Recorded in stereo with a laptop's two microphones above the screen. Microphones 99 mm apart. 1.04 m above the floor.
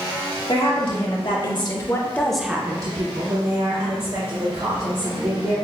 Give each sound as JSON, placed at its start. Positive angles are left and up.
{"t": 0.5, "sound": "a woman speaking", "side_deg": 65, "distance_m": 1.6}